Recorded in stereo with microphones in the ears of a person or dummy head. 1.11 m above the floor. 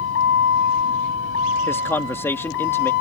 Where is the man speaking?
15° left (ahead or behind).